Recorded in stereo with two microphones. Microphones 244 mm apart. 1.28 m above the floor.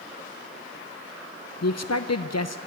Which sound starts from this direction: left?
A man speaking, at 1.6 s.